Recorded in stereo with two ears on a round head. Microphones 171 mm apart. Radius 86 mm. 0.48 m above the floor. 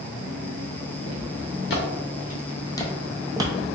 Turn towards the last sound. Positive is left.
turn(degrees=-30)  # may be behind; listen again after turning